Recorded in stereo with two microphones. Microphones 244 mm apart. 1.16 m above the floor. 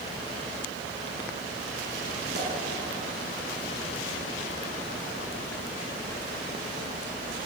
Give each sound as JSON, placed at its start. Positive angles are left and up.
{"t": 2.3, "sound": "a pop", "side_deg": -45, "distance_m": 8.0}